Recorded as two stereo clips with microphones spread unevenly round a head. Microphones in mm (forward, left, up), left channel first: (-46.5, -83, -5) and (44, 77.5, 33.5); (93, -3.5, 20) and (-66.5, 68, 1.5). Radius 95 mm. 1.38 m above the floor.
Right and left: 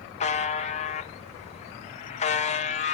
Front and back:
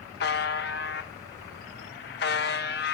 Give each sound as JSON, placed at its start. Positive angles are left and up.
{"t": 0.2, "sound": "a buzzer", "azimuth_deg": -65, "distance_m": 0.9}